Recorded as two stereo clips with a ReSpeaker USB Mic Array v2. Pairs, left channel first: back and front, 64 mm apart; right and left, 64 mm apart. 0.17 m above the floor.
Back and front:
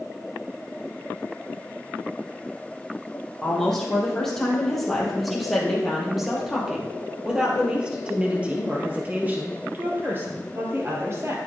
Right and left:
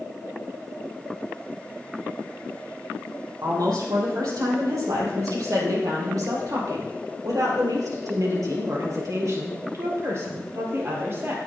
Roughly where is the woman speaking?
Left.